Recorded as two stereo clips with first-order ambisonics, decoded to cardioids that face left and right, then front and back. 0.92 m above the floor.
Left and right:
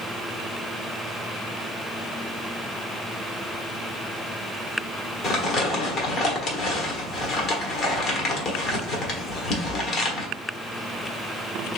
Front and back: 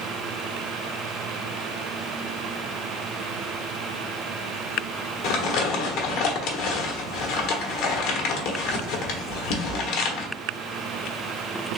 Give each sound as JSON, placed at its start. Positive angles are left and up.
{"t": 5.2, "sound": "crumpling", "azimuth_deg": 30, "distance_m": 1.2}